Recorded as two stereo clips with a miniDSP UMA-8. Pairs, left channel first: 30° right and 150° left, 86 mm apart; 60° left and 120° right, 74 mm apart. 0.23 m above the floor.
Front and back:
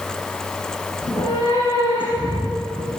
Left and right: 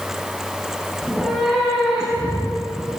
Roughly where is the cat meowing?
Ahead right.